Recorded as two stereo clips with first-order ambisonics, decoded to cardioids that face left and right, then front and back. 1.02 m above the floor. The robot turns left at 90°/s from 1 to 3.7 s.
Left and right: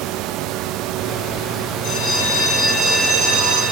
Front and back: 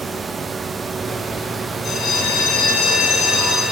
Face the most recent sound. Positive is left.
turn(degrees=-95)